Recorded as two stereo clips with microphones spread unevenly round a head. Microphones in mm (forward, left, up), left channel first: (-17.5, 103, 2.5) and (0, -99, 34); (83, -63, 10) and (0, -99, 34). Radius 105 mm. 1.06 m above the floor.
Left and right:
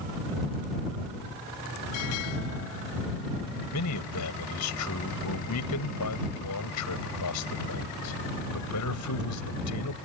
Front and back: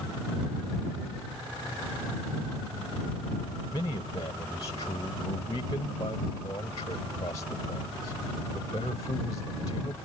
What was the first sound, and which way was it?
A man speaking, 90° left.